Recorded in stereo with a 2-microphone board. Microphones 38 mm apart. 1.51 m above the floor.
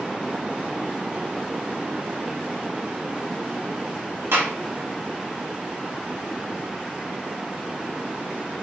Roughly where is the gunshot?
Right.